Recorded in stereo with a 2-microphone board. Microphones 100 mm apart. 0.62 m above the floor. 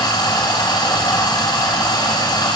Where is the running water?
45° left (ahead or behind), 3 m.